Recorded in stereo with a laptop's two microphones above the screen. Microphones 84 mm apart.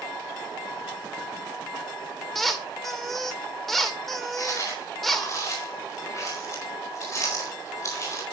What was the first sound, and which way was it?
A squeak, 5° left (ahead or behind).